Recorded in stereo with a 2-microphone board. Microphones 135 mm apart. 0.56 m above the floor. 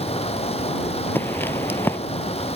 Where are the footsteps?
15° left (ahead or behind).